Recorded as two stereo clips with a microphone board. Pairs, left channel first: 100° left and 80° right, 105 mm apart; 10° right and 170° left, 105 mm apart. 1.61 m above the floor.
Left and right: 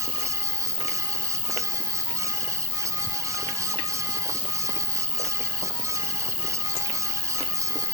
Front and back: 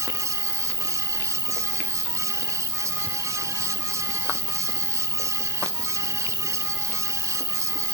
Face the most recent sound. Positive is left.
turn(degrees=115)